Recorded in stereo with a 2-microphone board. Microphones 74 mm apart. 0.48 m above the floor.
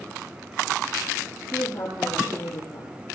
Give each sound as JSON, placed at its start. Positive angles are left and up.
{"t": 1.5, "sound": "a woman speaking", "side_deg": 50, "distance_m": 8.0}